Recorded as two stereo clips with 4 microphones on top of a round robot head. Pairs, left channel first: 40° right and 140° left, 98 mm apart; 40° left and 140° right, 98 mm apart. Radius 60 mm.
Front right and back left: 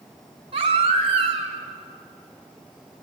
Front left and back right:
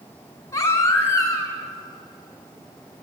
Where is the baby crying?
105° left, 3 m.